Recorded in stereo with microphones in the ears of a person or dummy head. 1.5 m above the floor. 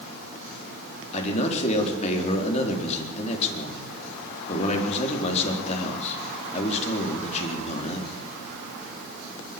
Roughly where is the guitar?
No guitar in this recording.